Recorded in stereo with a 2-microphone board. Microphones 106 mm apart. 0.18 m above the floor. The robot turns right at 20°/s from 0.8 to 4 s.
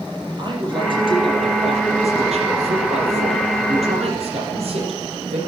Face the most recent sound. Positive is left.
turn(degrees=-70)